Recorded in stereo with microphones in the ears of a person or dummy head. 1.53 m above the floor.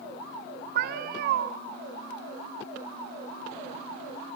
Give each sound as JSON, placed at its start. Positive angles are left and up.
{"t": 0.8, "sound": "a cat meowing", "side_deg": -55, "distance_m": 1.4}